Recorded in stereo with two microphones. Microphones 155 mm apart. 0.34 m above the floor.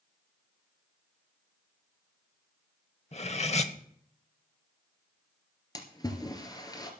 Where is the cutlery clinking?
45° left (ahead or behind), 0.9 m.